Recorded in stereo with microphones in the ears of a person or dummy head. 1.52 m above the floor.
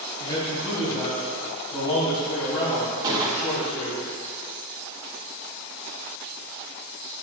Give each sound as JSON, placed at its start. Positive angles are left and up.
{"t": 0.2, "sound": "a man speaking", "side_deg": 25, "distance_m": 2.5}
{"t": 3.0, "sound": "a gunshot", "side_deg": -20, "distance_m": 0.9}